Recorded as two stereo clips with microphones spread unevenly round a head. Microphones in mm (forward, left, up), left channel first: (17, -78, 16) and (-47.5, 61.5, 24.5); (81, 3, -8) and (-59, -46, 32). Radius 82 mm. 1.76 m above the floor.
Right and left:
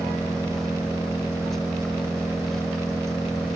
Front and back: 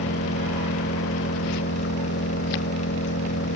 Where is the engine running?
25° left.